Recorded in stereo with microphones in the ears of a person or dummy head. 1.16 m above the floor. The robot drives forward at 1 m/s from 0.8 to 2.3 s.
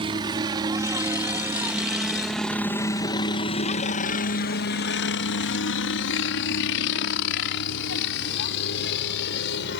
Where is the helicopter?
25° right (ahead or behind); by 9.8 s 60° left (ahead or behind).